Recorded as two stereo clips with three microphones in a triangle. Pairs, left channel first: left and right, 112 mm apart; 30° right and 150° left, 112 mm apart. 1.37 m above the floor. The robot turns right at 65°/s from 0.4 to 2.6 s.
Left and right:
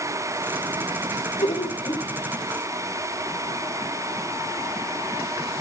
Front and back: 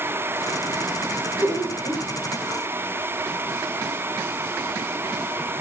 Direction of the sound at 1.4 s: 80° left.